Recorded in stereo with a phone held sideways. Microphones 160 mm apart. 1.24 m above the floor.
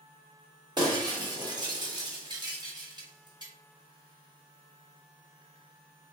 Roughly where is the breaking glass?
Right.